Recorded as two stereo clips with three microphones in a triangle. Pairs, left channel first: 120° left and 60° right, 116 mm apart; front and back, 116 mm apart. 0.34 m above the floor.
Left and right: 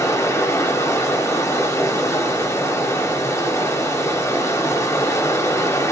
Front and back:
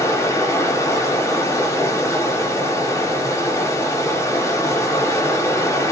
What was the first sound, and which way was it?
Running water, 60° left.